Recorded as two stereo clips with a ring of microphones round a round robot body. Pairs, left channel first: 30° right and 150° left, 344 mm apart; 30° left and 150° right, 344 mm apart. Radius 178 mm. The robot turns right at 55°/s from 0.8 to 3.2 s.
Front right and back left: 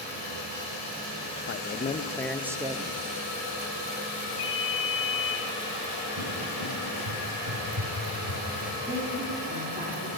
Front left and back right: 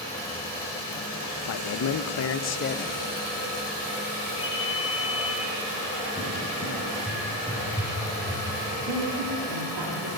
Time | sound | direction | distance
1.5 | a man speaking | 10° left | 0.6 m
4.4 | a ringtone | 65° right | 1.9 m
6.2 | a cupboard door | 110° left | 3 m
8.9 | a woman speaking | 140° right | 2.5 m